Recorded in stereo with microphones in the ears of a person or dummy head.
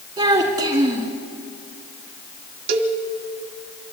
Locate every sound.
0.2 s a child speaking: 20° right (ahead or behind), 2 m
2.7 s a cowbell: 55° right (ahead or behind), 1.3 m